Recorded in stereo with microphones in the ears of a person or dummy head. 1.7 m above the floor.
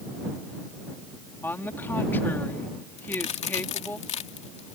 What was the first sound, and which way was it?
A woman speaking, 15° left (ahead or behind).